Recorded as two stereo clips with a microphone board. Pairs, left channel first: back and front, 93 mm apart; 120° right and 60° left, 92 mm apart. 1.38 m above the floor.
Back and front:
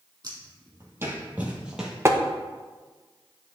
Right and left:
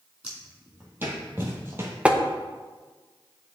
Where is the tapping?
Straight ahead, 0.6 m.